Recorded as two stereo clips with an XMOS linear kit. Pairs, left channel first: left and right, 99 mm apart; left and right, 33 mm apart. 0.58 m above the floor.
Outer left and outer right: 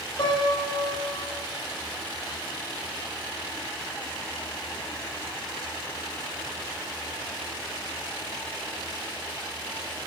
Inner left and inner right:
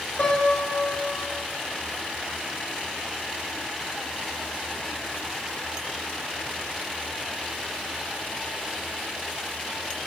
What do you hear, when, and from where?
0.2 s a piano: 60° left (ahead or behind), 2.5 m